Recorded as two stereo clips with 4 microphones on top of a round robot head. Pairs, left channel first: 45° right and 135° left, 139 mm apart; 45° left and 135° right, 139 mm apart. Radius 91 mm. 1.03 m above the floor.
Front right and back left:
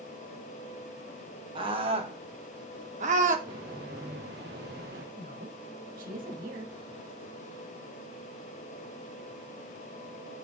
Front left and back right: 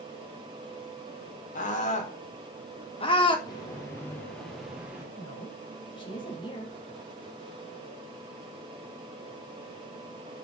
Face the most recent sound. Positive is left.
turn(degrees=105)